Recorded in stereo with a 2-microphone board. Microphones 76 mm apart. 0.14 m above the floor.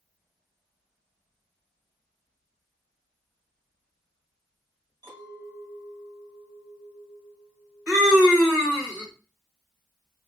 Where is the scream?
20° right (ahead or behind), 1.5 m.